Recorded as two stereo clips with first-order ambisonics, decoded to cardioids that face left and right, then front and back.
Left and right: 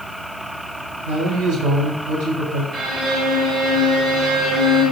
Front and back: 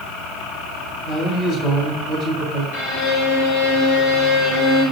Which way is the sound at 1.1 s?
65° right.